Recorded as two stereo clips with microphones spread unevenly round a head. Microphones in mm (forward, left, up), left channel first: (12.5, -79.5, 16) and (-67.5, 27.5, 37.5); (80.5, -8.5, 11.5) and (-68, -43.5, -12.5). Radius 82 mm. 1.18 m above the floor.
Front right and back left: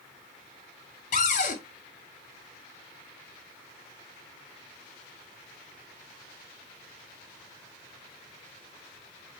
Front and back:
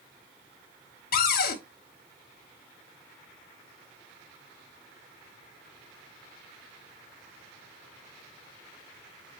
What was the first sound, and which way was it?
A cupboard door, 5° right.